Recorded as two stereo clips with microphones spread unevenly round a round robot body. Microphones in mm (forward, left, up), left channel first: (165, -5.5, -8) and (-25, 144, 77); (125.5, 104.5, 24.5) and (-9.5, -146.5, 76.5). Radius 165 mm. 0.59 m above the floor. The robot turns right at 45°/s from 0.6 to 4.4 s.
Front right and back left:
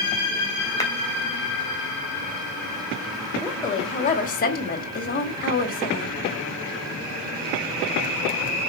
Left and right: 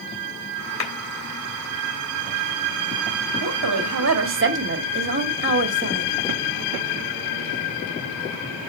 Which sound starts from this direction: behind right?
A woman speaking, at 3.4 s.